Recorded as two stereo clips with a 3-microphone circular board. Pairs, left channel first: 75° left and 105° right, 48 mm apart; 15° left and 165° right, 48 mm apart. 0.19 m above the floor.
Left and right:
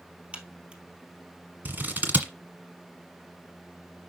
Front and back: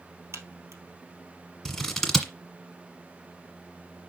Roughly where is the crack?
Behind.